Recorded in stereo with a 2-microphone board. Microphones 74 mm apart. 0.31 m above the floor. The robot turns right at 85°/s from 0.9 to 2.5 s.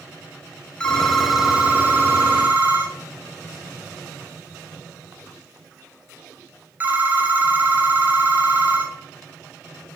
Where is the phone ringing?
10° left (ahead or behind), 0.5 m; by 9.0 s 25° right (ahead or behind), 0.5 m.